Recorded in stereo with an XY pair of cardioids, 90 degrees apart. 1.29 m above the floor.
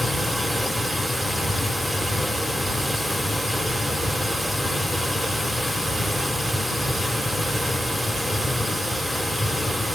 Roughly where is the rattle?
I don't hear a rattle.